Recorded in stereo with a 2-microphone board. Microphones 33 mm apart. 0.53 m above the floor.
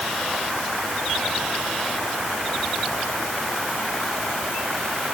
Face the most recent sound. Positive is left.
No sound to turn to.